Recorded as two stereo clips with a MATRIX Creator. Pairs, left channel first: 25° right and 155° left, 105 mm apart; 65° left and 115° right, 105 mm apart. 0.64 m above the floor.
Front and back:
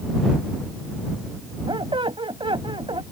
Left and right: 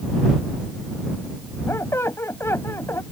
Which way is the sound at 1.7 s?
130° left.